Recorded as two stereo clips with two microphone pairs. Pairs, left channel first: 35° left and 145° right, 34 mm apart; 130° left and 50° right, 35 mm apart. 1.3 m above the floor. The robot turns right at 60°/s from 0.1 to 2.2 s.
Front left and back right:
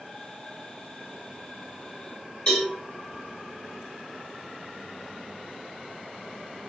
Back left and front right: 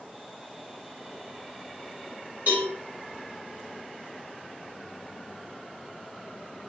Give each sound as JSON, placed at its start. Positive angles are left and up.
{"t": 2.5, "sound": "a cowbell", "azimuth_deg": -25, "distance_m": 1.4}